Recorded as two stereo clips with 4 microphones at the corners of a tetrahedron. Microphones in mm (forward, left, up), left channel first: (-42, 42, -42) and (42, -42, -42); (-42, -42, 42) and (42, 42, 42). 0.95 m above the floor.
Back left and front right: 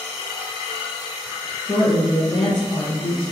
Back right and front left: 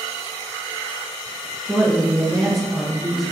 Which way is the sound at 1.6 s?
135° left.